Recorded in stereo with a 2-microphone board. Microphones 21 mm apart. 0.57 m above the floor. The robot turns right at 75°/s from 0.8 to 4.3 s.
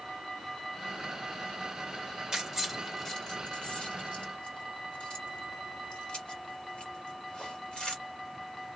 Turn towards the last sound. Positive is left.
turn(degrees=60)  # may be behind; listen again after turning